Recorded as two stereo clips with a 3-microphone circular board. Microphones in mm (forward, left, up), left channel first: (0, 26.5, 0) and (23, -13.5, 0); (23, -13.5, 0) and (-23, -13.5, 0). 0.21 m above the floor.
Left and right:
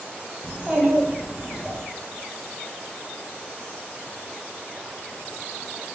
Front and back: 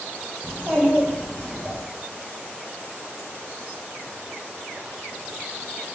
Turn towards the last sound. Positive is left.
turn(degrees=-125)